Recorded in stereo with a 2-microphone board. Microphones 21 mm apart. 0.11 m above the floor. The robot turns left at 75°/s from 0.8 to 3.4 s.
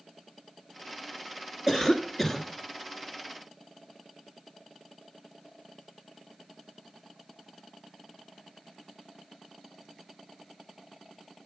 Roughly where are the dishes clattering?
I don't hear dishes clattering.